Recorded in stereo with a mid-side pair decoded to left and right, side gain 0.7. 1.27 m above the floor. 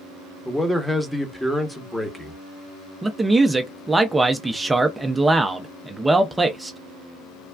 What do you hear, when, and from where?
0.5 s a man speaking: straight ahead, 0.9 m
3.0 s a man speaking: 10° right, 0.5 m